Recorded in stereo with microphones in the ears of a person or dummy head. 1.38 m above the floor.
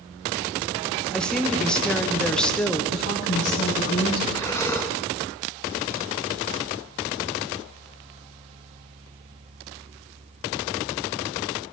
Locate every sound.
1.1 s a woman speaking: 5° left (ahead or behind), 1.1 m
2.9 s a woman speaking: 75° left (ahead or behind), 4.5 m
4.3 s breathing: 10° left (ahead or behind), 0.9 m